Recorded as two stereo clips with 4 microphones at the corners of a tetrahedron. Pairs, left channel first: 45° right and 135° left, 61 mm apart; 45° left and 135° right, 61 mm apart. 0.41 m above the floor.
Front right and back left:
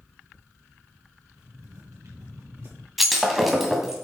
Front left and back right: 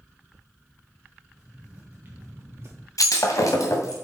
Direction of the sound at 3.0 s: 50° left.